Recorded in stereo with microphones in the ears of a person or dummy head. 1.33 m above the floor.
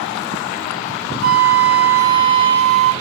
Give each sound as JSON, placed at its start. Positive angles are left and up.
{"t": 1.2, "sound": "a flute", "side_deg": -55, "distance_m": 1.2}